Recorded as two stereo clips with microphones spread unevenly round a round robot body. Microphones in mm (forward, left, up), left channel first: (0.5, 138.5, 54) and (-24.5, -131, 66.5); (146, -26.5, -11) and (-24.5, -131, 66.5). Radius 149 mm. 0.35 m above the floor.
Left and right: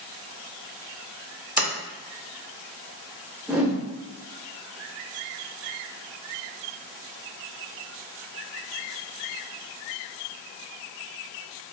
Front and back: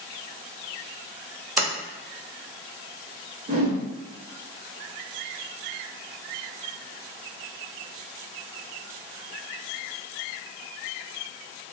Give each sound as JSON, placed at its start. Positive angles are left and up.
{"t": 1.6, "sound": "a sliding door", "azimuth_deg": -15, "distance_m": 0.5}
{"t": 3.5, "sound": "a whoosh", "azimuth_deg": 180, "distance_m": 0.8}